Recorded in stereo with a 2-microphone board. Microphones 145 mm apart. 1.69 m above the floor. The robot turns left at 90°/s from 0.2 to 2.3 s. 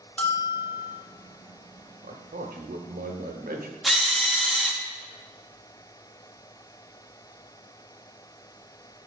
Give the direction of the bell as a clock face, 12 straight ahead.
6 o'clock.